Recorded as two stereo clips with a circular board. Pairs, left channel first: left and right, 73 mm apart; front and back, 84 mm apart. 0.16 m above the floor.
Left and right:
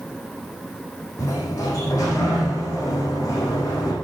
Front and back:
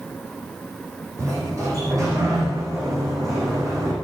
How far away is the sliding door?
About 7 m.